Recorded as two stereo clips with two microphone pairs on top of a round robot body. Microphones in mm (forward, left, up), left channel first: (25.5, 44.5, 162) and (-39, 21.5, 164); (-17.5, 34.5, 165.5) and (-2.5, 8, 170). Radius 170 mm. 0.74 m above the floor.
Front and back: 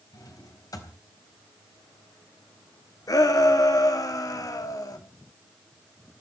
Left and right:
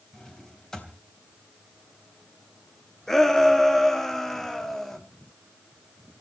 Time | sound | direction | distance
0.1 | a drawer | 45° left | 4 m
3.1 | a shout | 40° left | 2 m